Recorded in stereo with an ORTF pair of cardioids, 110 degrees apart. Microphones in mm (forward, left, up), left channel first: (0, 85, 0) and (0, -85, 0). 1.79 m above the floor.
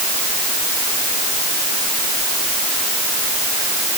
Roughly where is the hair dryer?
No hair dryer in this recording.